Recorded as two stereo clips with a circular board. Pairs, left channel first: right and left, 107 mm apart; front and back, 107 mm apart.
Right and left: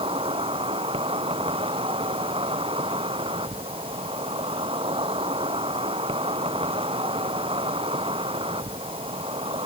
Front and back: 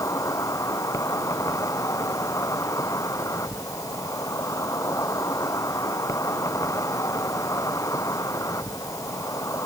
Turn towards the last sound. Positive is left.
turn(degrees=60)